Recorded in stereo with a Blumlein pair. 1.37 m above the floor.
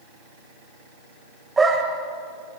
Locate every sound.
1.6 s a dog barking: 15° right, 3 m